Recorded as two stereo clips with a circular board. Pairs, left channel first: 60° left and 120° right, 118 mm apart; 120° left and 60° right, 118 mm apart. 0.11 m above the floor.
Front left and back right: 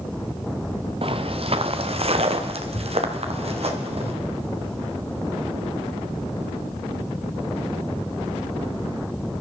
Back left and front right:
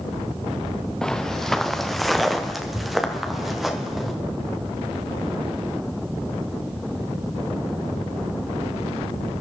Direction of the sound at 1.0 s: 155° right.